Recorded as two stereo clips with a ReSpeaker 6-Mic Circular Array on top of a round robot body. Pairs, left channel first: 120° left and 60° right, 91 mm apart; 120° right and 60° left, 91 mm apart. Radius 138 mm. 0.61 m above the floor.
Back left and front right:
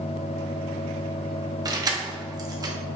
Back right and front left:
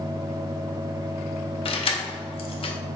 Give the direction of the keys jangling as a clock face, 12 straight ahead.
4 o'clock.